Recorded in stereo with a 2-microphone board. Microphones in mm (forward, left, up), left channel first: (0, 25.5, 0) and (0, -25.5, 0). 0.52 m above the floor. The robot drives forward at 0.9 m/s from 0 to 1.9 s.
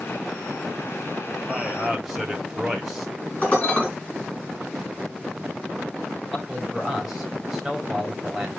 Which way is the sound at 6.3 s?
10° right (ahead or behind).